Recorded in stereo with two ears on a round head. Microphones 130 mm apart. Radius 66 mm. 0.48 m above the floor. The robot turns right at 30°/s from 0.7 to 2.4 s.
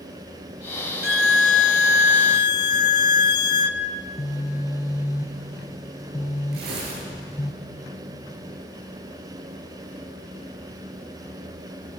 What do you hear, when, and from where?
1.0 s a violin: 105° left, 0.9 m; by 3.8 s 145° left, 0.9 m
4.0 s a phone buzzing: 25° left (ahead or behind), 1.6 m
6.5 s tearing paper: 80° right, 8.5 m